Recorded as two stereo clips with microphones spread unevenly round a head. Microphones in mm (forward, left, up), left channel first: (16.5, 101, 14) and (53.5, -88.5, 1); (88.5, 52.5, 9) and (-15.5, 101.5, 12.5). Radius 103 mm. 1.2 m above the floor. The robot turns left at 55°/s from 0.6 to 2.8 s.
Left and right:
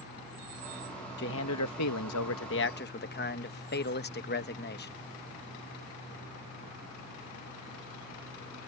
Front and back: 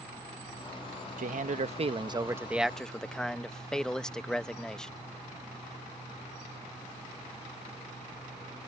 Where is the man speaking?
150° left; by 4.9 s 60° left.